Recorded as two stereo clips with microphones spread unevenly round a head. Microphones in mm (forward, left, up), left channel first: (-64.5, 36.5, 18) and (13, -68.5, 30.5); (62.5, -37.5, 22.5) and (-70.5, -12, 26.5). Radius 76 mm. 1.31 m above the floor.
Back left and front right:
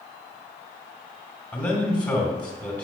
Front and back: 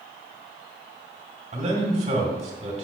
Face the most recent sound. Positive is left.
turn(degrees=-165)